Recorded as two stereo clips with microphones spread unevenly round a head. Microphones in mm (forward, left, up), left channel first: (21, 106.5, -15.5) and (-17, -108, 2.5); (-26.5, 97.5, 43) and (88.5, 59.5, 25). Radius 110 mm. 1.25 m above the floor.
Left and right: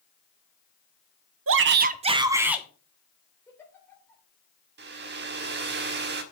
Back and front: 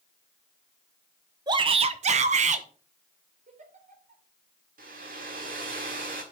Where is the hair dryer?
65° right, 1.5 m.